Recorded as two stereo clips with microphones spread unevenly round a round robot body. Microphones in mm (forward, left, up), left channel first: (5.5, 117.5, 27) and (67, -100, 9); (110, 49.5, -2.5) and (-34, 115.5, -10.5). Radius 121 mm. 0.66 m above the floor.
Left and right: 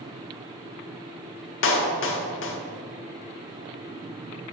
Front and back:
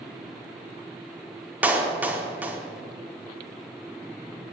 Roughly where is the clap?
Left.